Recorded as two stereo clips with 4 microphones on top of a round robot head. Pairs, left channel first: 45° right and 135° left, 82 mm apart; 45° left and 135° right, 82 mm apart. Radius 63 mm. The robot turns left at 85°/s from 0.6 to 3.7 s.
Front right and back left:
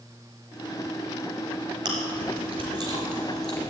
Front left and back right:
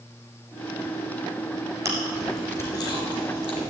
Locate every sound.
1.9 s chewing: 170° left, 3.5 m; by 3.7 s 15° left, 3.5 m